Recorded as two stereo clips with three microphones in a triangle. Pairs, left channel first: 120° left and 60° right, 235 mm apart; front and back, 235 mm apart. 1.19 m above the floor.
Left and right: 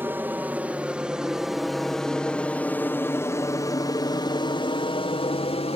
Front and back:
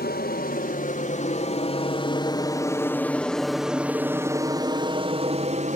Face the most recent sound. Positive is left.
turn(degrees=160)